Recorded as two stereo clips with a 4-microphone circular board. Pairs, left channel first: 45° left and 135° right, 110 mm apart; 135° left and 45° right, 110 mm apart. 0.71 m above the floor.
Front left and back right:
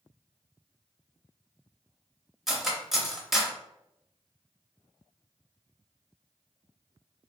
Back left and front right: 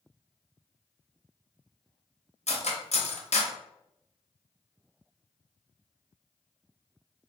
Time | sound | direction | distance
2.5 | cutlery clinking | 140° left | 0.6 m